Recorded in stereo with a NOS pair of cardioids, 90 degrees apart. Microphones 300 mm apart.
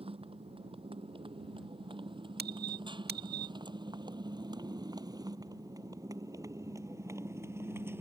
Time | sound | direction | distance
0.0 | a motorcycle | 20° right | ?
2.4 | a squeak | 30° right | ?